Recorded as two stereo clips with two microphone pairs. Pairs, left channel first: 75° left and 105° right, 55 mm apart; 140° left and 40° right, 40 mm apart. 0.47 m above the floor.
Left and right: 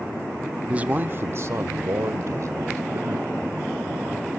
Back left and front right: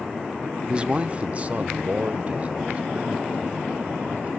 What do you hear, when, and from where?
0.7 s a man speaking: 60° right, 0.7 m; by 4.3 s 95° right, 3 m